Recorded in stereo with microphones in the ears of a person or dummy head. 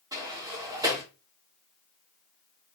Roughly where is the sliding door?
Right.